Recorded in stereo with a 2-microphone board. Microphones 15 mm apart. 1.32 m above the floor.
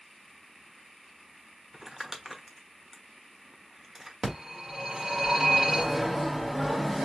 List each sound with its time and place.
1.7 s crumpling: 30° right (ahead or behind), 1.1 m
4.2 s a phone ringing: 40° right (ahead or behind), 3 m